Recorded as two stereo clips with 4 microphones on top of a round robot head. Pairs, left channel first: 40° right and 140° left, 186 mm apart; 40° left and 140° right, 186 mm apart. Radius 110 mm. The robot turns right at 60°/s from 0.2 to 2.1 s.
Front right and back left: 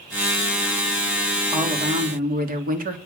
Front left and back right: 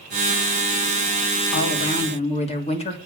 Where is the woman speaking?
60° left, 3 m; by 3.0 s 95° left, 3 m.